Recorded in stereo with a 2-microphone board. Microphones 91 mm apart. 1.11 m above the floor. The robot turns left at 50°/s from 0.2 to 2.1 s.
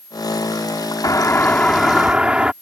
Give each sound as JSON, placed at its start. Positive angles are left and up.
{"t": 1.0, "sound": "a doorbell", "azimuth_deg": 40}